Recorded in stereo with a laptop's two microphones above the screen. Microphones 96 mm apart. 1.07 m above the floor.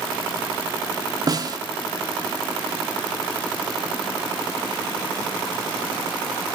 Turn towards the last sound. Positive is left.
turn(degrees=-40)  # may be behind; listen again after turning